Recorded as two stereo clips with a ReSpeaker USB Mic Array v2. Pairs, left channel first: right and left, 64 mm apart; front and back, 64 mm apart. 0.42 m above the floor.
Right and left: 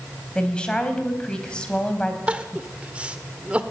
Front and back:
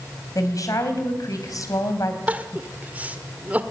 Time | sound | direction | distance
0.3 | a woman speaking | 20° right | 3 m
2.3 | crying | 140° left | 1.3 m